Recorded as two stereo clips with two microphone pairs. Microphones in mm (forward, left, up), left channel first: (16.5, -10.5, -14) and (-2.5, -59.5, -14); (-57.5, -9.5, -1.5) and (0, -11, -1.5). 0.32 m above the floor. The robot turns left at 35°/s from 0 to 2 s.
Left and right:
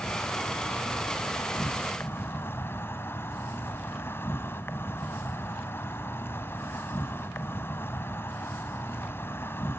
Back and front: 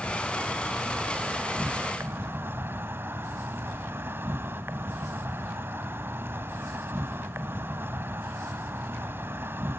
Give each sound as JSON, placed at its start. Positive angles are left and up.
{"t": 0.0, "sound": "an insect", "azimuth_deg": 110, "distance_m": 1.3}